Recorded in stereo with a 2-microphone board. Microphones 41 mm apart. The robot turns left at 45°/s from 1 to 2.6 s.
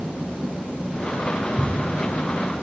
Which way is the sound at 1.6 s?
5° right (ahead or behind).